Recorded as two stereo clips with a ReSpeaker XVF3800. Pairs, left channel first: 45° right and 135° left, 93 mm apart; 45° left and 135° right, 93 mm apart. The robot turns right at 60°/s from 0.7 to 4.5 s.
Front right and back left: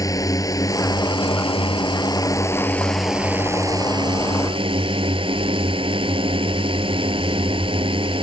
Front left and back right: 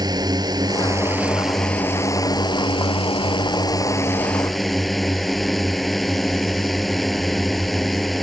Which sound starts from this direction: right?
A drone, at 0.0 s.